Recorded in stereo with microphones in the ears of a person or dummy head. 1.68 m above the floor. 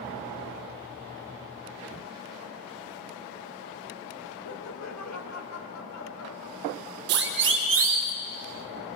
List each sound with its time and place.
4.5 s laughter: 70° left (ahead or behind), 2.5 m; by 7.0 s 80° left, 3.5 m
7.1 s a siren: 60° right (ahead or behind), 2.5 m; by 8.1 s 70° right (ahead or behind), 3 m